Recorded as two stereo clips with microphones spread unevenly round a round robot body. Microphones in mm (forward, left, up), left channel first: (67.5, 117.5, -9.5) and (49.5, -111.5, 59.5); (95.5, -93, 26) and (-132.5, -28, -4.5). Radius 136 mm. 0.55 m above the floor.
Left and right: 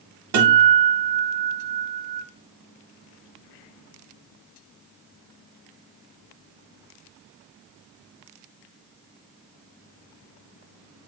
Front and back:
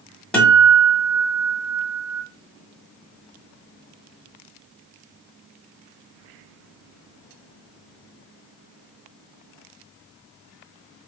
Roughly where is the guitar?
Right.